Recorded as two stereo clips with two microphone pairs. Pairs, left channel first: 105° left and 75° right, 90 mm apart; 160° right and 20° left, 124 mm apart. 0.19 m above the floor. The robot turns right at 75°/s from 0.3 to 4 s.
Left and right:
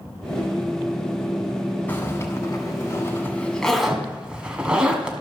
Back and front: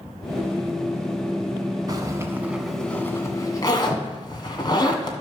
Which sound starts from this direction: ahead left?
A zipper, at 1.9 s.